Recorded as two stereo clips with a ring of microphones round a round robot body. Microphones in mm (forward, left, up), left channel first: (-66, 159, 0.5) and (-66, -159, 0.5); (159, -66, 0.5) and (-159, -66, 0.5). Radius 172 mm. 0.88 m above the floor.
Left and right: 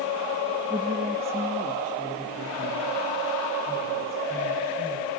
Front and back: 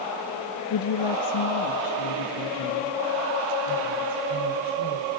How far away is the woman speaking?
About 0.9 m.